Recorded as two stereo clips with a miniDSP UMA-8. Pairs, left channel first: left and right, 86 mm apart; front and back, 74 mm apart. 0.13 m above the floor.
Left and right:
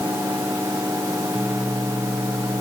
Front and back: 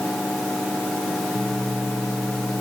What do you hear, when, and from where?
Only background noise.